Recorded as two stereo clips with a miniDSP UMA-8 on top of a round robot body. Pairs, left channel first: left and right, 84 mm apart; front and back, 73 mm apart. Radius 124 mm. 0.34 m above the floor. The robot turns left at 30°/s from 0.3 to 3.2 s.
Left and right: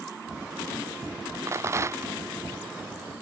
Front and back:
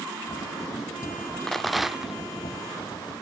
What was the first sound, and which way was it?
A rattle, 80° right.